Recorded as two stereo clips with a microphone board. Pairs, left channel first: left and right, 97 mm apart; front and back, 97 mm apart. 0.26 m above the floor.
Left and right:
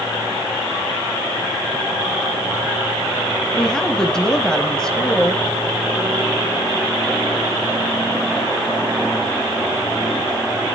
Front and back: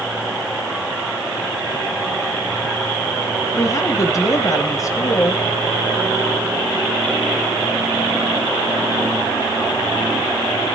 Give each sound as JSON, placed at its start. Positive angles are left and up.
{"t": 3.5, "sound": "a woman speaking", "azimuth_deg": 10, "distance_m": 1.3}